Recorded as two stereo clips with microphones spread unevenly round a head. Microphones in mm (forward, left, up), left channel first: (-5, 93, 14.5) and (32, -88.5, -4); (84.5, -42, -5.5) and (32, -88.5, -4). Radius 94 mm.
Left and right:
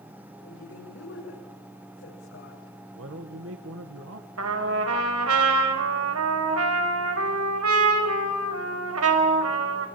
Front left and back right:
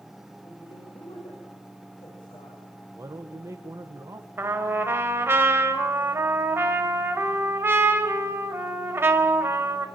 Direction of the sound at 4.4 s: 85° right.